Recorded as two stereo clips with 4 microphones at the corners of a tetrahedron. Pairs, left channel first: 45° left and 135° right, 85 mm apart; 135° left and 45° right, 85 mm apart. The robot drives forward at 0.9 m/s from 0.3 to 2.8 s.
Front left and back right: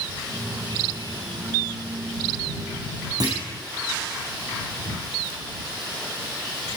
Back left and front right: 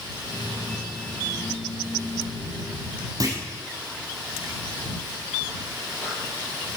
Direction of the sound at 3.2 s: 95° right.